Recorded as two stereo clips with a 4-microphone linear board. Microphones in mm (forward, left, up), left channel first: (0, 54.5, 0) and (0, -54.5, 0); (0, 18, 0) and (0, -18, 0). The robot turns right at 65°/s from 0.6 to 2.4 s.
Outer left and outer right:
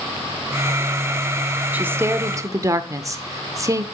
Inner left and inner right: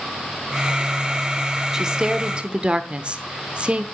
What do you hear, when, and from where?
1.7 s a woman speaking: 150° right, 0.9 m; by 3.8 s 105° right, 0.9 m